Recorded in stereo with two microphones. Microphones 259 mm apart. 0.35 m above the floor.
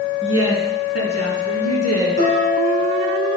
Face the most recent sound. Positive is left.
turn(degrees=75)  # may be behind; listen again after turning